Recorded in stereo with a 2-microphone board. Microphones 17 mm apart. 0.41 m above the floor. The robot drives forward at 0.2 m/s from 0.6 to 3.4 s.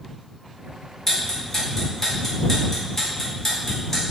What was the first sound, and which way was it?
Ticking, 20° left (ahead or behind).